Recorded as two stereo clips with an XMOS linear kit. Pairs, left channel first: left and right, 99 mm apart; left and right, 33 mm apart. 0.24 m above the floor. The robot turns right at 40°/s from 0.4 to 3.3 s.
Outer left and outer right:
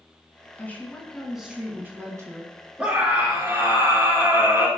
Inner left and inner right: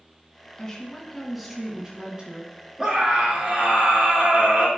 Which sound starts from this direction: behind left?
A woman speaking, at 0.6 s.